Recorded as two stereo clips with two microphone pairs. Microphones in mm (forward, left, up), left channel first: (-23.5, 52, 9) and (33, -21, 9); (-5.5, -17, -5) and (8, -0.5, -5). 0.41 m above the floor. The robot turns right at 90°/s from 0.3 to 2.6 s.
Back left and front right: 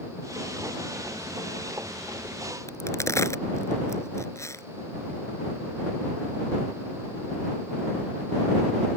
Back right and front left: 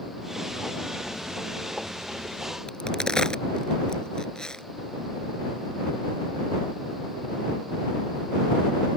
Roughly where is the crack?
Behind.